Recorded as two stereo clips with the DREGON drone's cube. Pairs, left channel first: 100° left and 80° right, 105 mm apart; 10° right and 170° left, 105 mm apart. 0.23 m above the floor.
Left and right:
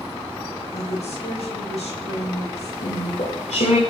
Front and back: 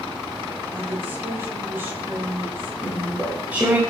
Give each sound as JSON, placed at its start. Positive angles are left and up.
{"t": 0.7, "sound": "a woman speaking", "azimuth_deg": 100, "distance_m": 7.5}
{"t": 2.8, "sound": "chewing", "azimuth_deg": 95, "distance_m": 7.5}